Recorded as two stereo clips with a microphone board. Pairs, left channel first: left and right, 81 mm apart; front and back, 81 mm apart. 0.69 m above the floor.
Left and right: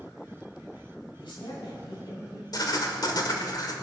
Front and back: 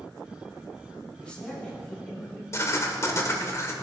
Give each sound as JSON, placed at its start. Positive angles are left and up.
{"t": 1.2, "sound": "a man speaking", "azimuth_deg": 80, "distance_m": 6.0}
{"t": 2.5, "sound": "writing", "azimuth_deg": 55, "distance_m": 1.5}